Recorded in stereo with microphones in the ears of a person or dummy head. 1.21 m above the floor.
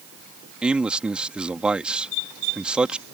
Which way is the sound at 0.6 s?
5° right (ahead or behind).